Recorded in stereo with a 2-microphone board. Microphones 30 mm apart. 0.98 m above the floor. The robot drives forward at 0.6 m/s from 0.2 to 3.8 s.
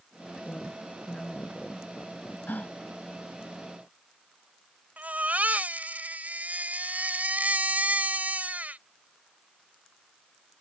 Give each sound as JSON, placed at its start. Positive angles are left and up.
{"t": 0.5, "sound": "a woman speaking", "side_deg": 30}
{"t": 2.5, "sound": "a gasp", "side_deg": 85}
{"t": 5.0, "sound": "a baby crying", "side_deg": -70}